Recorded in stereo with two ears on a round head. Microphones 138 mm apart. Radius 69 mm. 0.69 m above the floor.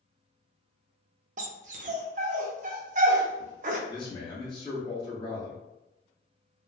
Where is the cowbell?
I don't hear a cowbell.